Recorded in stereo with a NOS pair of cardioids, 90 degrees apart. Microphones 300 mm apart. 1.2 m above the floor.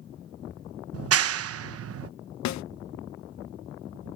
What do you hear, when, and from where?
0.9 s a clap: 50° right
2.5 s a snare drum: 65° left